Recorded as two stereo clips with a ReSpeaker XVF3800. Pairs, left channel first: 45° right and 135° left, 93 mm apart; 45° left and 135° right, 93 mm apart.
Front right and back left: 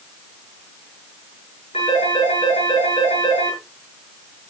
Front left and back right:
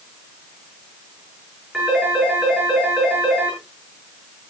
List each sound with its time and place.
1.7 s a phone ringing: 50° right, 8.5 m